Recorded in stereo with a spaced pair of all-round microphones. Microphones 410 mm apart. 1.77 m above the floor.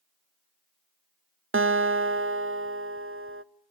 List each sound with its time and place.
1.5 s a guitar: 35° right (ahead or behind), 0.5 m